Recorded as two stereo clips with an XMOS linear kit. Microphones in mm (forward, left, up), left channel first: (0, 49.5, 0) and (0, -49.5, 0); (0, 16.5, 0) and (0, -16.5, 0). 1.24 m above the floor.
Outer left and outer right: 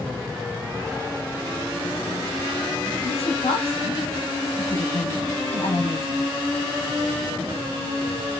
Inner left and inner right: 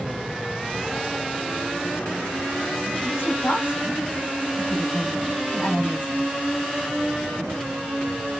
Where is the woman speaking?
75° left (ahead or behind), 3 m.